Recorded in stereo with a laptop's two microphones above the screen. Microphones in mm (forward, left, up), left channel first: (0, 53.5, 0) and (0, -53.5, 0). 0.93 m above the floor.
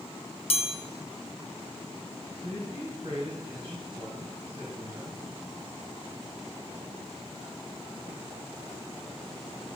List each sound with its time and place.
0.5 s a chime: 60° left (ahead or behind), 0.7 m
2.4 s a man speaking: 55° right (ahead or behind), 4.5 m